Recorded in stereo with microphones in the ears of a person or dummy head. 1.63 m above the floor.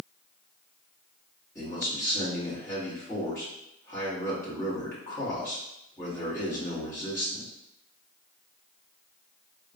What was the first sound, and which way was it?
A man speaking, 15° left (ahead or behind).